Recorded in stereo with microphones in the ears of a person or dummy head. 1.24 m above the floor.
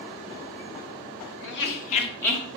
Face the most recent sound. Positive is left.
turn(degrees=-5)  # may be behind; listen again after turning